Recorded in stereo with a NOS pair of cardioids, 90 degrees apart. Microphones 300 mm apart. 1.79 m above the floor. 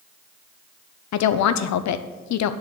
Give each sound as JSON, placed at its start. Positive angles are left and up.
{"t": 1.1, "sound": "a woman speaking", "azimuth_deg": 70, "distance_m": 0.8}